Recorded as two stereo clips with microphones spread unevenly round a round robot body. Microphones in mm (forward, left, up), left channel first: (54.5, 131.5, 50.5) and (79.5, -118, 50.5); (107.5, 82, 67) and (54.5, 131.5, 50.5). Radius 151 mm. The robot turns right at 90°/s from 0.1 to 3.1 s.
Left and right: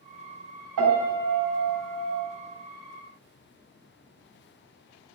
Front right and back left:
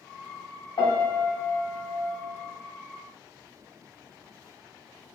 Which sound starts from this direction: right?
A piano, at 0.8 s.